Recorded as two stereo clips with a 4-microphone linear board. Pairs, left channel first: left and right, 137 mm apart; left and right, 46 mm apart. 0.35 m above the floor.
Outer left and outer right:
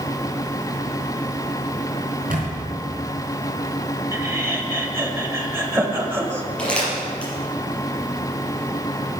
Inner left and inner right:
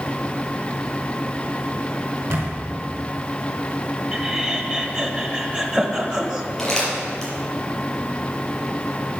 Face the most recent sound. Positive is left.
turn(degrees=10)  # may be behind; listen again after turning